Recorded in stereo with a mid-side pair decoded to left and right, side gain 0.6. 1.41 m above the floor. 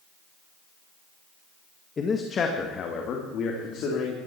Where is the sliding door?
I don't hear a sliding door.